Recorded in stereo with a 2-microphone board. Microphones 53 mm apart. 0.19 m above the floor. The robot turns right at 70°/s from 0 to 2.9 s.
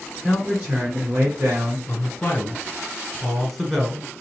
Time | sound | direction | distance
0.2 | a man speaking | 160° left | 2 m
1.9 | a man speaking | 115° left | 1.5 m